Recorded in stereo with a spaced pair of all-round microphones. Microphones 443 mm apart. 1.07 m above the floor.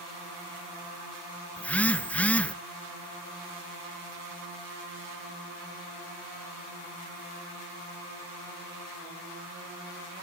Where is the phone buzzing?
5° left (ahead or behind), 0.6 m.